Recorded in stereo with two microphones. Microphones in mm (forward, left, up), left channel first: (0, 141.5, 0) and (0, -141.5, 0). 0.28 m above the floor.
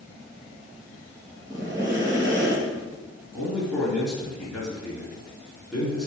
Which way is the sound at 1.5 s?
10° right (ahead or behind).